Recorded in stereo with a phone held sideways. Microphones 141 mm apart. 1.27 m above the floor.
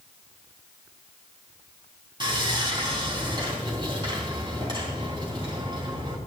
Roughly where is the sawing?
Right.